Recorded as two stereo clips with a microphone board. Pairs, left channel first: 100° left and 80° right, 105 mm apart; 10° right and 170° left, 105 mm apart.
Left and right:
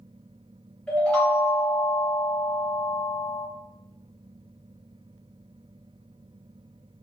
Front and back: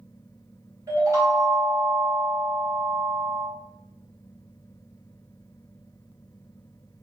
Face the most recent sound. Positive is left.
turn(degrees=170)